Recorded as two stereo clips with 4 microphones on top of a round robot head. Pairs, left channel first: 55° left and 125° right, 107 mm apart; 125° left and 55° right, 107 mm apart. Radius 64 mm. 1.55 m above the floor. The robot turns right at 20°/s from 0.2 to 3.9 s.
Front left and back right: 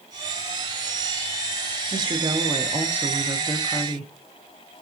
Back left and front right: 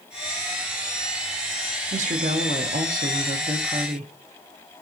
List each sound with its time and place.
1.9 s a woman speaking: 75° right, 0.6 m; by 4.1 s 35° right, 0.6 m